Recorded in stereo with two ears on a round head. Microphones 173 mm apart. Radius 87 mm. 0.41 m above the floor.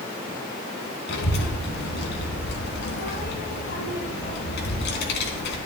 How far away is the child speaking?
About 3.5 m.